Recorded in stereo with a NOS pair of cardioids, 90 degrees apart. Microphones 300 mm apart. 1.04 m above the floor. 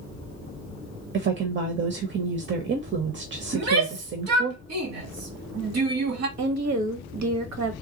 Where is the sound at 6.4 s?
65° right, 1.4 m.